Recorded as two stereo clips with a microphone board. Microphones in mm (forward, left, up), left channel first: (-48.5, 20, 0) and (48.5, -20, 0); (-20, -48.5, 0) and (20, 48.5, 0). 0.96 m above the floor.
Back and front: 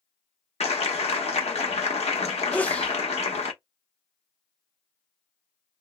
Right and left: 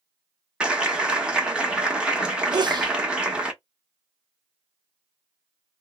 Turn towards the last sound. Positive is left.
turn(degrees=85)